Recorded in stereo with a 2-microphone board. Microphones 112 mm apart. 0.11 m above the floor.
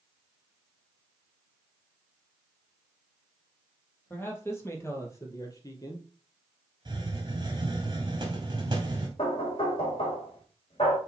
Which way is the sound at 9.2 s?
55° left (ahead or behind).